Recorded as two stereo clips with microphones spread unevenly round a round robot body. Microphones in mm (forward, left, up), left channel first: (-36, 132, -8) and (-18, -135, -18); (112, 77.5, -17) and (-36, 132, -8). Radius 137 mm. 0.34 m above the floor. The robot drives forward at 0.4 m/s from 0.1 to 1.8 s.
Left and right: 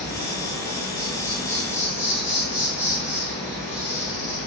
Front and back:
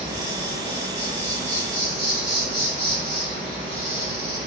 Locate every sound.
0.0 s an insect: 170° left, 1.4 m; by 4.5 s 175° left, 2 m